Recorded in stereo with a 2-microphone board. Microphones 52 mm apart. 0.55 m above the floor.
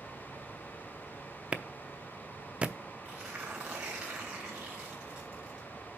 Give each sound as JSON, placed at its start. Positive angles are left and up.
{"t": 1.5, "sound": "a clap", "side_deg": -20, "distance_m": 0.6}
{"t": 3.0, "sound": "tearing paper", "side_deg": -15, "distance_m": 4.0}